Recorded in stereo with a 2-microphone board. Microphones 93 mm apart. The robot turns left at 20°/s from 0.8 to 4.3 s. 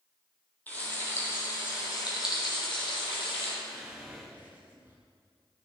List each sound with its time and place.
0.7 s frying: 160° left, 4.5 m; by 3.5 s 105° left, 4.5 m
3.6 s whispering: 5° right (ahead or behind), 5.5 m; by 5.0 s 20° right (ahead or behind), 5.5 m